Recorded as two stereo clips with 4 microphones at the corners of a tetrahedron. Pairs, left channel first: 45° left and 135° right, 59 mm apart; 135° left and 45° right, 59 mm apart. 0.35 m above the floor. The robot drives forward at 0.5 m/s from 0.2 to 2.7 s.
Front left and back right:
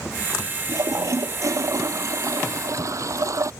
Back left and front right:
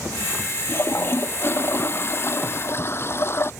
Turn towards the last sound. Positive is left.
turn(degrees=-170)